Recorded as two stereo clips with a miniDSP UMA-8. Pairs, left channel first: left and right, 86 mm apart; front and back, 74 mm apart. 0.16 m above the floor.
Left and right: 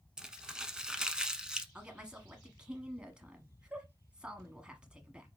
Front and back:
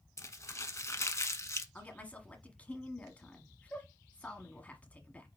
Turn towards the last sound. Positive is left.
turn(degrees=-30)